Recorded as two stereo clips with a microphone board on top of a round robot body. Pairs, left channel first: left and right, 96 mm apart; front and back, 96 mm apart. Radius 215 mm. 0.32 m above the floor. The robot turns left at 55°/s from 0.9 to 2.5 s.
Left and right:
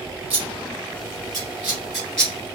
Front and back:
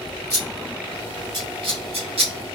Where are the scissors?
120° right, 2.5 m; by 2.3 s 165° left, 2.5 m.